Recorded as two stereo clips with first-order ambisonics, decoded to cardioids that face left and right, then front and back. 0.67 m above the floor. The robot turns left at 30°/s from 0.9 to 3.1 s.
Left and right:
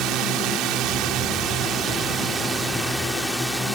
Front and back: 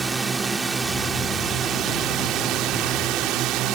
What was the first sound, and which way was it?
A drone, 110° right.